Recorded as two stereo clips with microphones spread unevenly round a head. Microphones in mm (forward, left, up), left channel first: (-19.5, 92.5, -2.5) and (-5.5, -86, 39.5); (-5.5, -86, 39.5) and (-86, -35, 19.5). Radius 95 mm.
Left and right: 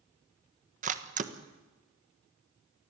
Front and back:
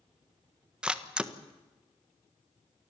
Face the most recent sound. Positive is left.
turn(degrees=-140)